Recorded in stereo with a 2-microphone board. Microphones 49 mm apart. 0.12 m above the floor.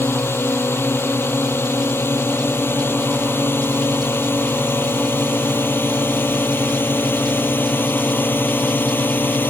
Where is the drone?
55° left (ahead or behind); by 9.5 s 45° left (ahead or behind).